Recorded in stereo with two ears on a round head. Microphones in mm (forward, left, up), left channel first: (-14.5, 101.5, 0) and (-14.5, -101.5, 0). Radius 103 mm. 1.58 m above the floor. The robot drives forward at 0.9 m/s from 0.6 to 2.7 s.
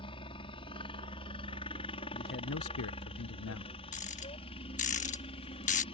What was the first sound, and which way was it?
A helicopter, 25° left (ahead or behind).